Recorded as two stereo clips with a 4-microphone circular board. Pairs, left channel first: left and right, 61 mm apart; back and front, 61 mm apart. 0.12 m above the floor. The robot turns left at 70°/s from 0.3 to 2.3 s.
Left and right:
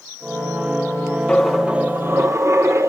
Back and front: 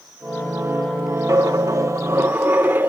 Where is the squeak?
I don't hear a squeak.